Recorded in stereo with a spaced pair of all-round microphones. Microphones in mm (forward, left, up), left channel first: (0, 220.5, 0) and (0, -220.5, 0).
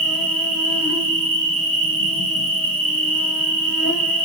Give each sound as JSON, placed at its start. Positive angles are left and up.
{"t": 0.0, "sound": "an insect", "side_deg": 35, "distance_m": 1.6}